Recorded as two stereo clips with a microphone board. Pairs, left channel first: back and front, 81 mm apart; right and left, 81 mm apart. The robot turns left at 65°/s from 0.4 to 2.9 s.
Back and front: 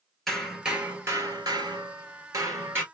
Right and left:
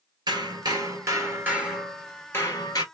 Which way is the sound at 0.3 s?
95° left.